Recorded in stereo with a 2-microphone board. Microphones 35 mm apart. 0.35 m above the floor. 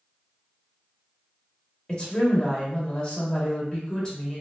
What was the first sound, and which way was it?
A woman speaking, 25° left (ahead or behind).